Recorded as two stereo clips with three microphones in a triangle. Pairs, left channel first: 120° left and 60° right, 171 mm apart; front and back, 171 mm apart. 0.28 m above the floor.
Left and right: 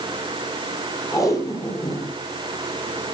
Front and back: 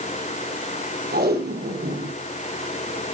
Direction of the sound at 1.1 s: 170° right.